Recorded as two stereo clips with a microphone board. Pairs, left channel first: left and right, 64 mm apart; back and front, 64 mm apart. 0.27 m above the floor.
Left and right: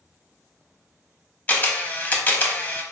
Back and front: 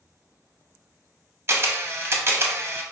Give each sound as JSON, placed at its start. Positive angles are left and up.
{"t": 1.5, "sound": "a camera shutter", "azimuth_deg": 35, "distance_m": 0.5}